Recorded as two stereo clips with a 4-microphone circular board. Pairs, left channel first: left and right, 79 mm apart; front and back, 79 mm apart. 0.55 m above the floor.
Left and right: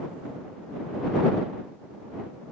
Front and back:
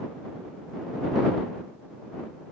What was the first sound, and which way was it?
Only background noise.